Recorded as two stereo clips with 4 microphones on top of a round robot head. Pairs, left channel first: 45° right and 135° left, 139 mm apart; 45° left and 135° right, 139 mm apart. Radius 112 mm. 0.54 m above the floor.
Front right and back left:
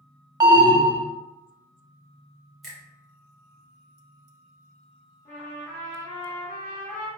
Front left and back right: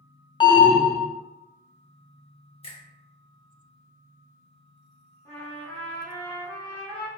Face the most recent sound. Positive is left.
turn(degrees=-30)